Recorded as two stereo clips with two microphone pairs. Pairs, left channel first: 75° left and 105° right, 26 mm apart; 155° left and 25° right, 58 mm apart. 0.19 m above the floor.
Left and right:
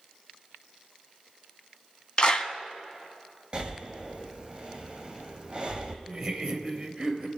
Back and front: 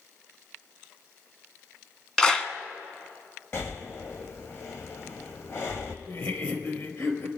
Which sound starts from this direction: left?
A clap, at 2.2 s.